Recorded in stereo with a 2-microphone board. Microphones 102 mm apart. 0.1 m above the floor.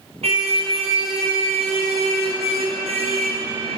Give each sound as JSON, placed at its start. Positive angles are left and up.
{"t": 0.2, "sound": "a car horn", "side_deg": -75, "distance_m": 4.0}